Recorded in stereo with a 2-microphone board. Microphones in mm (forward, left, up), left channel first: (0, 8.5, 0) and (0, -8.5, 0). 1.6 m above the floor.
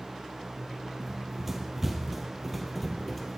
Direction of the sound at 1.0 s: 25° right (ahead or behind).